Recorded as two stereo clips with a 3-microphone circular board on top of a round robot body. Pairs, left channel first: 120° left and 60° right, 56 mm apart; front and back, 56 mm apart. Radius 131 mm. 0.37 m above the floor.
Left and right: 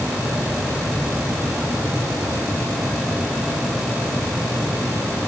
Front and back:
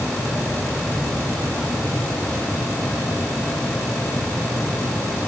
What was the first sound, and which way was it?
Only background noise.